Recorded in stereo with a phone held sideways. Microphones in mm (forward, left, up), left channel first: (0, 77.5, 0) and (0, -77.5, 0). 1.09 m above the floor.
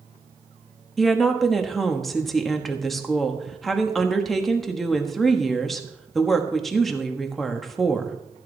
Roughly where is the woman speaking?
Centre.